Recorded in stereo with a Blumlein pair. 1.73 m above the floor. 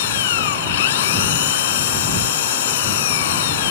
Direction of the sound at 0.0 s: 55° left.